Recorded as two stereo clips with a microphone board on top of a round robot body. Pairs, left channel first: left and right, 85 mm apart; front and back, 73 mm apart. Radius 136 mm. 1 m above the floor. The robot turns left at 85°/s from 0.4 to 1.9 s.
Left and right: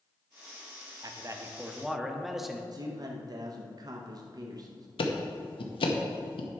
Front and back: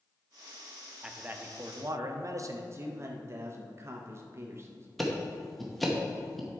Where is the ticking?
90° left, 0.9 m.